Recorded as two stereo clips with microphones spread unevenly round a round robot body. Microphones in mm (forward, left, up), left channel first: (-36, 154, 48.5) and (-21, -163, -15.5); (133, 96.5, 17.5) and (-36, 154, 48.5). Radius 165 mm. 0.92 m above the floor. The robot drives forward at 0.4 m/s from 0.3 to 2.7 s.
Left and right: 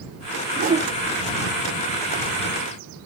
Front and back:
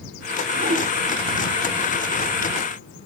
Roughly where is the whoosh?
Behind right.